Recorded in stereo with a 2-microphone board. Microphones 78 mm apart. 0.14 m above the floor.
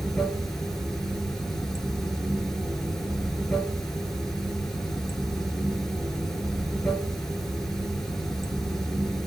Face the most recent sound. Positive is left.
turn(degrees=5)  # may be behind; listen again after turning